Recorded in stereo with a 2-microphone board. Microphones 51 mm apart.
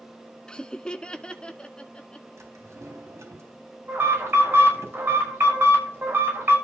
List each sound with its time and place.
0.5 s laughter: 15° left (ahead or behind), 0.5 m; by 2.3 s 20° left (ahead or behind), 1.6 m
2.4 s a drawer: 65° right (ahead or behind), 3.5 m
3.9 s an alarm: 45° right (ahead or behind), 6.5 m